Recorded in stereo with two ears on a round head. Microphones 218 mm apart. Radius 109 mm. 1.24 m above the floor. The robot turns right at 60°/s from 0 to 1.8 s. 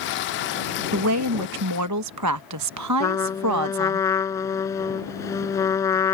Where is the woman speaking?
125° right; by 4.0 s 75° right.